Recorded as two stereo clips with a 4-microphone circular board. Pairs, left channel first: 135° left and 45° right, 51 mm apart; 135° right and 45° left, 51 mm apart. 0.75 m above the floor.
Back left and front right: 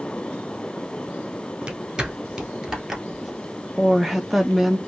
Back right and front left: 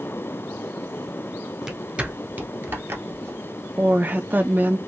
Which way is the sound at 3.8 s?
40° left.